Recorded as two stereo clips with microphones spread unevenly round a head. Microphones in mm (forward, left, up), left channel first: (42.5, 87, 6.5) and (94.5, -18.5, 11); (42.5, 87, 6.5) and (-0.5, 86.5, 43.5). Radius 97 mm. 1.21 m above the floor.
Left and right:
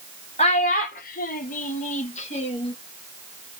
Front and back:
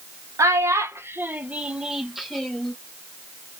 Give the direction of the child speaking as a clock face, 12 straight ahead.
6 o'clock.